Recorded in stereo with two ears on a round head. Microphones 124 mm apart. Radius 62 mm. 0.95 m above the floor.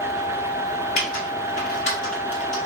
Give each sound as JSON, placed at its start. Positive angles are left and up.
{"t": 1.0, "sound": "typing on a keyboard", "side_deg": 50, "distance_m": 1.2}